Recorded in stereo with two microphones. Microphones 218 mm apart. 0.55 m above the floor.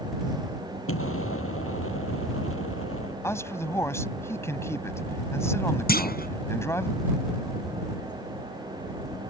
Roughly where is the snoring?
No snoring in this recording.